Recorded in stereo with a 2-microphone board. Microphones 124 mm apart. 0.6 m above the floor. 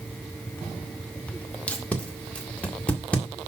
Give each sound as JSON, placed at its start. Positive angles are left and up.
{"t": 1.7, "sound": "tape being pulled", "side_deg": 10, "distance_m": 1.8}